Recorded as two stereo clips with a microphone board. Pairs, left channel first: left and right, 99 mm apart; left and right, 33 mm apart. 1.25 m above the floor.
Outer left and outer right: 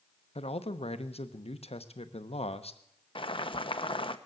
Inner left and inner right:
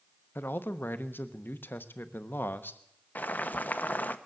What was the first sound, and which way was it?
A man speaking, 80° left.